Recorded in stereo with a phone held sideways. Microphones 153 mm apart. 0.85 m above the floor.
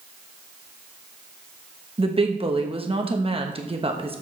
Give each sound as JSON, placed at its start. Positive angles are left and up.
{"t": 2.0, "sound": "a woman speaking", "side_deg": -35, "distance_m": 1.1}